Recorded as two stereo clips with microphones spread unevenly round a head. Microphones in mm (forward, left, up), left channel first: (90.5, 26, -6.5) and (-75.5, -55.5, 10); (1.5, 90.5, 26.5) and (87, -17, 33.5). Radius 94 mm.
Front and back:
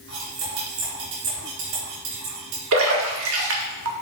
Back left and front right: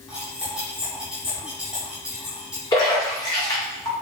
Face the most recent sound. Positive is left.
turn(degrees=-160)